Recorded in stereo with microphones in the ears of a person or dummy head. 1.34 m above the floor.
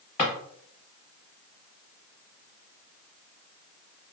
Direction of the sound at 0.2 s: 30° left (ahead or behind).